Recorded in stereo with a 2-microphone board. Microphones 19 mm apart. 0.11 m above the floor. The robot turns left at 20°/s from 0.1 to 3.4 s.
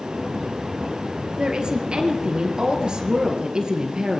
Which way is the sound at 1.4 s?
75° right.